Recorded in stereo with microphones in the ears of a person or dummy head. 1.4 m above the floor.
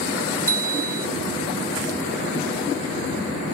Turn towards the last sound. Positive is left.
turn(degrees=15)  # may be behind; listen again after turning